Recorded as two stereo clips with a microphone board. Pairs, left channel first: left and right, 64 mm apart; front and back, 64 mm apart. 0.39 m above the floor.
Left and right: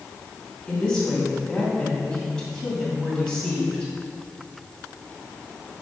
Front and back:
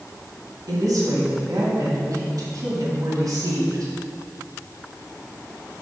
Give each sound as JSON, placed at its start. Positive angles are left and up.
{"t": 0.7, "sound": "a woman speaking", "azimuth_deg": 170, "distance_m": 2.0}